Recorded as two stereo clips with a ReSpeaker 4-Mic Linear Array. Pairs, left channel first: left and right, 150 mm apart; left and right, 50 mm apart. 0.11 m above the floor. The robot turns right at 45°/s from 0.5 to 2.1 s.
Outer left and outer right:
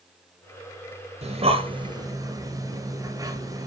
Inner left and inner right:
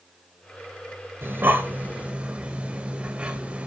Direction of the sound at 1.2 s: 45° right (ahead or behind).